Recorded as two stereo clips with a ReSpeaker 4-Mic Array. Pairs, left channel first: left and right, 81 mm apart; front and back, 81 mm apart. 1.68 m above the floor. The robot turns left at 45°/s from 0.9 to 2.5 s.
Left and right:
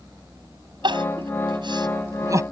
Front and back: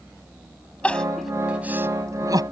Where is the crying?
75° right; by 2.4 s 145° right.